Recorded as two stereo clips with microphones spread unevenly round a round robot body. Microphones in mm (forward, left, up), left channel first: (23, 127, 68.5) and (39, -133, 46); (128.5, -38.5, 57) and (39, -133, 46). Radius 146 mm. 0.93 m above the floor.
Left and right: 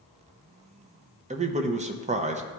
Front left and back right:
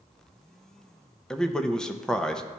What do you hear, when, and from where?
1.3 s a man speaking: 45° right, 0.7 m